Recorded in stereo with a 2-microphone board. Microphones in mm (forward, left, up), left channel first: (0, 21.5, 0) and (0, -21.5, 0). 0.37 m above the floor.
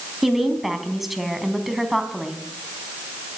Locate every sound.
0.2 s a woman speaking: 5° right (ahead or behind), 3 m